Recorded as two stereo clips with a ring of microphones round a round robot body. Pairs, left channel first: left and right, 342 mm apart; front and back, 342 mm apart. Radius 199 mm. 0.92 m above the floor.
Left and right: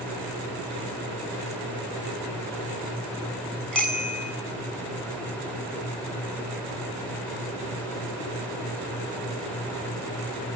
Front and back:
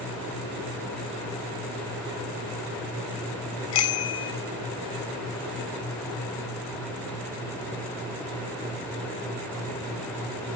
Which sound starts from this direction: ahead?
A bicycle bell, at 3.7 s.